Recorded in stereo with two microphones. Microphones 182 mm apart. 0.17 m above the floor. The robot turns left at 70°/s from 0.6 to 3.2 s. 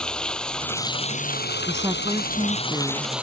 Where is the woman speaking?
15° right (ahead or behind); by 3.1 s 10° right (ahead or behind).